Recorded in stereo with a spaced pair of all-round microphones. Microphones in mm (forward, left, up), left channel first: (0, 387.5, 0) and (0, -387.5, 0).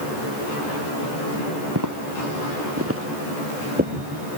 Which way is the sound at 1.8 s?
25° right (ahead or behind).